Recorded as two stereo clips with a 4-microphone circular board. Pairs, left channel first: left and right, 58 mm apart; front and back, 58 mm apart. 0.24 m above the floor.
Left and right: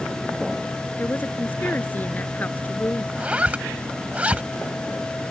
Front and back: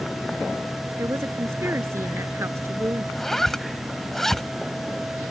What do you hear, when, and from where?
1.0 s a woman speaking: 145° left
3.1 s a zipper: 75° right